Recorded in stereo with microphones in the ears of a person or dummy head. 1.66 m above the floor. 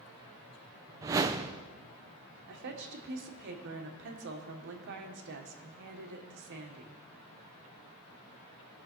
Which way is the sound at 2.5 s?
60° right (ahead or behind).